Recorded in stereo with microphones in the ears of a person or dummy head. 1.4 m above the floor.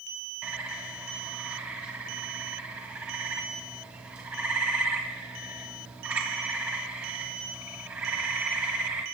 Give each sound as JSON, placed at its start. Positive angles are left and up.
{"t": 0.4, "sound": "a bird", "side_deg": -5, "distance_m": 2.0}